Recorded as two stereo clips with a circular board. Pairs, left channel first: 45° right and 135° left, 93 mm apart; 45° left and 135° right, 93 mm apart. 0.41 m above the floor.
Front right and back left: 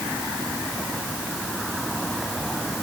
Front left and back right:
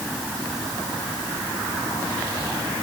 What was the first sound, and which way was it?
Only background noise.